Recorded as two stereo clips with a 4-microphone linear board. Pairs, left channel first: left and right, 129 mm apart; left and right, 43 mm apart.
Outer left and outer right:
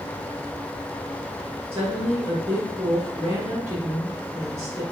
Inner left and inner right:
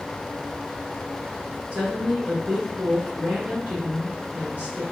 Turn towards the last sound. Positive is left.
turn(degrees=-50)  # may be behind; listen again after turning